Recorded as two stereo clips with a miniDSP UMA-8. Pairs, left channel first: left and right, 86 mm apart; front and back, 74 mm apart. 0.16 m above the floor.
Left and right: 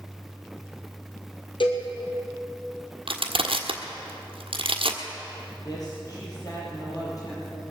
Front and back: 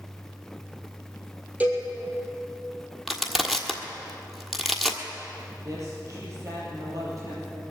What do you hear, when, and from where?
1.6 s a cowbell: 110° left, 2.5 m
3.1 s crushing: 95° right, 1.4 m
5.5 s a woman speaking: 135° left, 5 m